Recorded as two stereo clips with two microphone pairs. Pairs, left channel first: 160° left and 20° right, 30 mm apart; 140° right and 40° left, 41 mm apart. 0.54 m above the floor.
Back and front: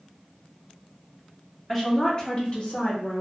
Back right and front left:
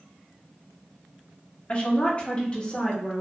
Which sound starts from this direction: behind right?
A woman speaking, at 1.7 s.